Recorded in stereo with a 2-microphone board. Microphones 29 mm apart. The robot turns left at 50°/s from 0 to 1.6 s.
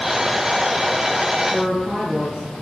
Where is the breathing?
I don't hear breathing.